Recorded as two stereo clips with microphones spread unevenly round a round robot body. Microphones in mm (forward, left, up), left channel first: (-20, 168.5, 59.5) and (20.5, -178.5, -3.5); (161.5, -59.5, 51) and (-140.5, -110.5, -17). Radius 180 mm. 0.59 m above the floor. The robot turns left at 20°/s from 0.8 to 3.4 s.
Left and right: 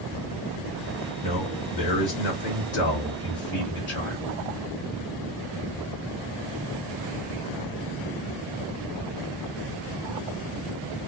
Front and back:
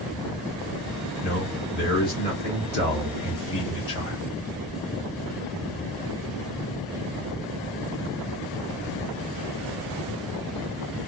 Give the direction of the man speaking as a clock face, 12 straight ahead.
9 o'clock.